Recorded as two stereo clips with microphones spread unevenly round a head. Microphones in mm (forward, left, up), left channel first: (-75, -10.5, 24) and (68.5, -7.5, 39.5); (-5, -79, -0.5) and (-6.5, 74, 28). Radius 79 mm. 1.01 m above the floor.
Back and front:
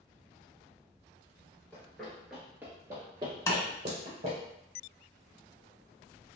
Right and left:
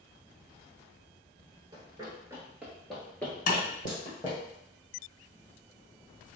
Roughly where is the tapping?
Behind right.